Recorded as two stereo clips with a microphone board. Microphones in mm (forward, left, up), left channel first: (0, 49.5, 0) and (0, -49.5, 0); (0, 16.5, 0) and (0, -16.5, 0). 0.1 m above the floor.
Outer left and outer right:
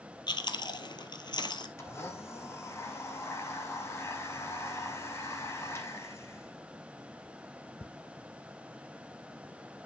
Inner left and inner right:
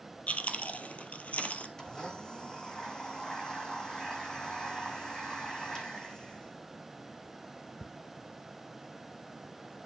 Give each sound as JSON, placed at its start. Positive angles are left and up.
{"t": 0.3, "sound": "chewing", "side_deg": 45, "distance_m": 1.3}
{"t": 1.8, "sound": "a blender", "side_deg": 25, "distance_m": 1.6}